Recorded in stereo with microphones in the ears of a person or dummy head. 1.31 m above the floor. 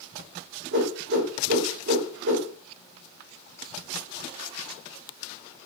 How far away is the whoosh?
About 0.8 m.